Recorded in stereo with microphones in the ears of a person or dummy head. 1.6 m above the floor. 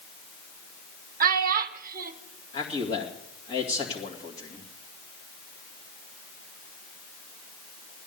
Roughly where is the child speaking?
Right.